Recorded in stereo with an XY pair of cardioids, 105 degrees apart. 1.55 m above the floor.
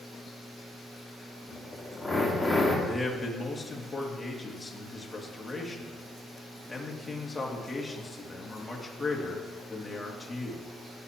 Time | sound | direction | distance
1.5 | a drill | 5° left | 2.5 m
2.9 | a man speaking | 10° left | 2.5 m